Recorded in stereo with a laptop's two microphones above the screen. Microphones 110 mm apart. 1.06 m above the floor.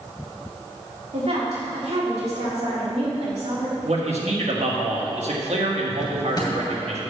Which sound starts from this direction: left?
A drawer, at 6.0 s.